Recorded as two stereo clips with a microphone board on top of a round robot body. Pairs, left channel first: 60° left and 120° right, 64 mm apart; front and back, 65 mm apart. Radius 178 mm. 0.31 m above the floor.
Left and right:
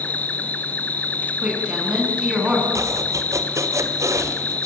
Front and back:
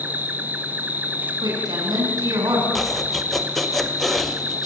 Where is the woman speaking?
165° left, 6 m.